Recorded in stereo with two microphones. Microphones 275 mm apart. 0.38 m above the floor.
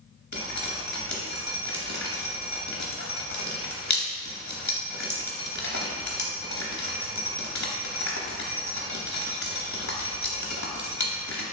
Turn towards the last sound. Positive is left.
turn(degrees=80)